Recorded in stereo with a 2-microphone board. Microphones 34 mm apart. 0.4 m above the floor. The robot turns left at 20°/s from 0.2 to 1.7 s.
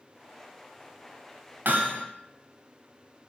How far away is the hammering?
About 0.8 m.